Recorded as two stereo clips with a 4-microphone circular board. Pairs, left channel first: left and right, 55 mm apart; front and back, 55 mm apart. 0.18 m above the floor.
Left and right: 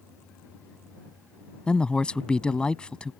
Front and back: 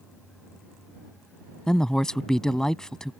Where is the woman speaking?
55° left.